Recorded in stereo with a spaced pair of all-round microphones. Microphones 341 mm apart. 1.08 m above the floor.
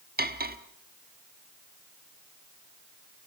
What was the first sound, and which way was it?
Cutlery clinking, 25° right (ahead or behind).